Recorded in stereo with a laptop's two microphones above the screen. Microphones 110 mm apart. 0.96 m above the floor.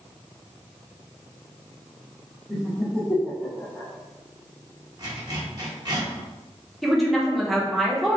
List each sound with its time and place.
2.5 s laughter: 5° left (ahead or behind), 0.7 m; by 3.9 s 10° left (ahead or behind), 0.6 m
5.0 s a zipper: 35° right (ahead or behind), 1.1 m
6.8 s a woman speaking: centre (ahead or behind), 0.8 m